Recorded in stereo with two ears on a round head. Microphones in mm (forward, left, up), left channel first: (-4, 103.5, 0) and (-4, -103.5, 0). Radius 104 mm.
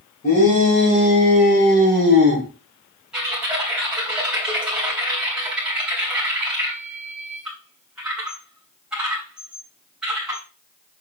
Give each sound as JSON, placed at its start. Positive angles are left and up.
{"t": 0.2, "sound": "a shout", "side_deg": 40, "distance_m": 5.5}
{"t": 3.1, "sound": "typing on a keyboard", "side_deg": -5, "distance_m": 3.0}